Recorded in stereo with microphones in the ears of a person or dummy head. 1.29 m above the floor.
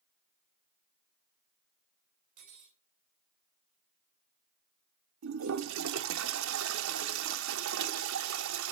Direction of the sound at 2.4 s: 40° right (ahead or behind).